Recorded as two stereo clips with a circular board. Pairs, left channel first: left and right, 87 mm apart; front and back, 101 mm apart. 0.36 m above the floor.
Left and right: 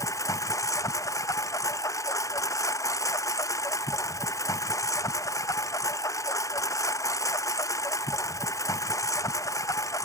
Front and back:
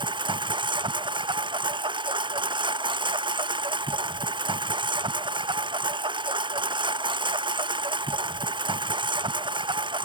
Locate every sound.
0.0 s a lawn mower: 140° left